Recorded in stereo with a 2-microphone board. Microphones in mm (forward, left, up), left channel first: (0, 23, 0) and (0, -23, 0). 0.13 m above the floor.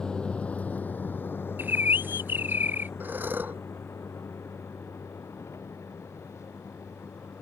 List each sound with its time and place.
0.0 s a vehicle: 15° left (ahead or behind); by 7.4 s 80° left
1.6 s a bird: 45° right (ahead or behind)
3.0 s breathing: 40° right (ahead or behind)